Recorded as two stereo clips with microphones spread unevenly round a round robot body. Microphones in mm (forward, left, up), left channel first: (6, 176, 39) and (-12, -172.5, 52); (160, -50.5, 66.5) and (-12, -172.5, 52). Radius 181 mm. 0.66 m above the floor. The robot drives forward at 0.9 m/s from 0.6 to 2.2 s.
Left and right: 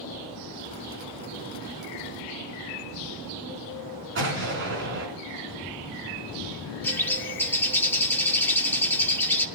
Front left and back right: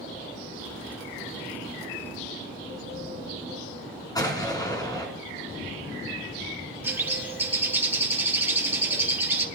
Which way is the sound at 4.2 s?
40° right.